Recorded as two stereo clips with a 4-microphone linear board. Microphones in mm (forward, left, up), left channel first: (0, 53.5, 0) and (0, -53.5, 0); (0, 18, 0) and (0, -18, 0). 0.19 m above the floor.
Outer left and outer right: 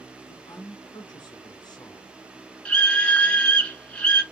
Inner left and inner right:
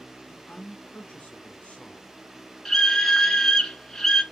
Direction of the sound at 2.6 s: 10° left (ahead or behind).